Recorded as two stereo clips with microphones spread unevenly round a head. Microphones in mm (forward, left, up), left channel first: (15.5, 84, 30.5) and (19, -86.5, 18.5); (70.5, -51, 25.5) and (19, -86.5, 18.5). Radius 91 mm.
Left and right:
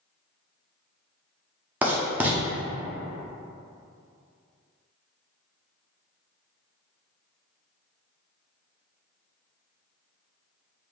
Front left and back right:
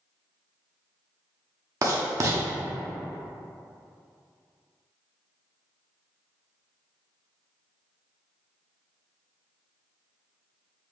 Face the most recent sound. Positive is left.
turn(degrees=-165)